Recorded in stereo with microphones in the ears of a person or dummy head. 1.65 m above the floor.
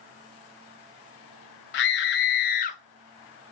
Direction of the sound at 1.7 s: 60° left (ahead or behind).